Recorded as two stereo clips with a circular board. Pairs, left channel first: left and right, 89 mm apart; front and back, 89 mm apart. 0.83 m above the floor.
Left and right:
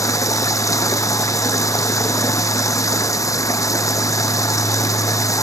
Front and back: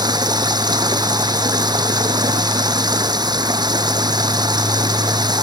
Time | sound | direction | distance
0.0 | running water | 140° left | ?